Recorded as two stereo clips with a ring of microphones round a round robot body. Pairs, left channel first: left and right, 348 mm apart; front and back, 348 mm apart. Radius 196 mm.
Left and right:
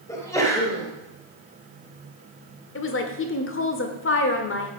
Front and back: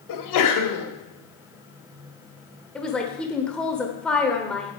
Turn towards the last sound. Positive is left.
turn(degrees=85)